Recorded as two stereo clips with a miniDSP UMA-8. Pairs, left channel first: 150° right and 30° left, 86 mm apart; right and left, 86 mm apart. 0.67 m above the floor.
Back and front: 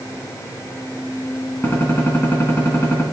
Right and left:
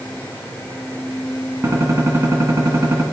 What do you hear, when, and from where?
1.6 s a gunshot: 145° left, 2 m